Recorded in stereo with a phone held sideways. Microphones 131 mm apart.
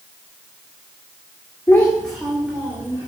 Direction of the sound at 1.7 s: 20° left (ahead or behind).